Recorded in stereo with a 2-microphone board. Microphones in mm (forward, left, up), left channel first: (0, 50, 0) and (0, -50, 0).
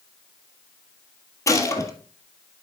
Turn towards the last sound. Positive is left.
turn(degrees=30)  # may be behind; listen again after turning